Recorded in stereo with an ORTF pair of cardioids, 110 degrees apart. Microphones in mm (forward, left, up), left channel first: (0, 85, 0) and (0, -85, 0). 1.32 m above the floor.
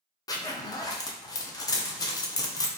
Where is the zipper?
20° left, 0.6 m.